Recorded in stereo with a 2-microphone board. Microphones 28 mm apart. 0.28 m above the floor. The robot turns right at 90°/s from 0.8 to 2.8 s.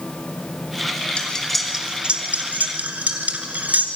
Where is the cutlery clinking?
40° left (ahead or behind), 2 m; by 3.9 s 65° right (ahead or behind), 2 m.